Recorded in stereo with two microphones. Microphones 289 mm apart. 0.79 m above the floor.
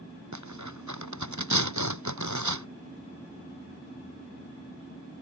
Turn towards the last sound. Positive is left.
turn(degrees=-80)